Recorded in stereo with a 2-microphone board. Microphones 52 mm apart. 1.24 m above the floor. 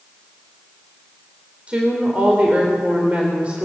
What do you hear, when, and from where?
1.7 s a woman speaking: 25° right (ahead or behind), 3.5 m